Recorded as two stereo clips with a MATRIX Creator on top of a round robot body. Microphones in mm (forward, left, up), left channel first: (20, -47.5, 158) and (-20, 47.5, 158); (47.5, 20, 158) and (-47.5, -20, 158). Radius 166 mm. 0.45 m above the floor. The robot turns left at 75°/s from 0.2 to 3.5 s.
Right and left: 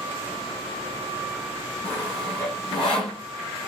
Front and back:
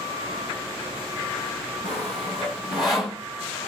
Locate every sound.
1.8 s sawing: 50° left, 1.3 m; by 3.2 s 55° right, 1.3 m